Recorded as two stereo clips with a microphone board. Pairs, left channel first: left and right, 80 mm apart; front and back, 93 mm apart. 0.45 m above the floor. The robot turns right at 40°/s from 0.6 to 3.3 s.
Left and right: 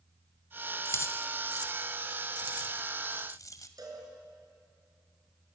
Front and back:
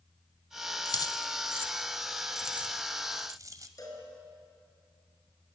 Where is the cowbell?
50° right, 5.5 m.